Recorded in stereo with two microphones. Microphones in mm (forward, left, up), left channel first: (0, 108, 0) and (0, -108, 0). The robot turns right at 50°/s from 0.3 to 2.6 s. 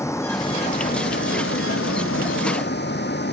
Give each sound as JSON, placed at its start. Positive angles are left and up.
{"t": 0.0, "sound": "a vehicle", "azimuth_deg": 15}